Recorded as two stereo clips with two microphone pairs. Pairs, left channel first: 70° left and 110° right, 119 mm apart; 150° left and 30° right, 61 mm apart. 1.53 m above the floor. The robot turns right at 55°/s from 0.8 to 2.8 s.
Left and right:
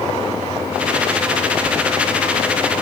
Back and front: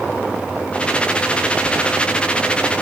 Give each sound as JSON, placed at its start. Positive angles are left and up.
{"t": 1.7, "sound": "a squeak", "azimuth_deg": 15, "distance_m": 0.7}